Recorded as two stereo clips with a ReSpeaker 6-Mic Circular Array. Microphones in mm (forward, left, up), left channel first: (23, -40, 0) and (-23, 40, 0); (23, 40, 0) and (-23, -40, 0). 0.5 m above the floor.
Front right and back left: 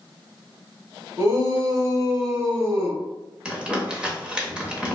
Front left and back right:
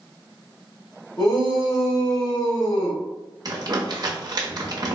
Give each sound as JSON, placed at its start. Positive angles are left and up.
{"t": 1.2, "sound": "a shout", "azimuth_deg": 70, "distance_m": 1.7}
{"t": 3.5, "sound": "crumpling", "azimuth_deg": -160, "distance_m": 0.8}